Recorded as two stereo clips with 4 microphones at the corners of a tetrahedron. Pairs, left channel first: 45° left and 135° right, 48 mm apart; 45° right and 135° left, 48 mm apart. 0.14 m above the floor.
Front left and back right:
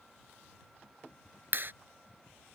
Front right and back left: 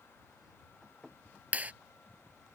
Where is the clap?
170° right.